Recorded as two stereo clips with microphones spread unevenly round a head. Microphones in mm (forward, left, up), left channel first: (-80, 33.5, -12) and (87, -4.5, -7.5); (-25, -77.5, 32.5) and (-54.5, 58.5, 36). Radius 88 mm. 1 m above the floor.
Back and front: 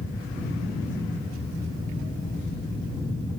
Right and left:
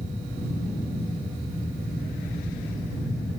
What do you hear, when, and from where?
0.0 s a fan: 160° left, 6 m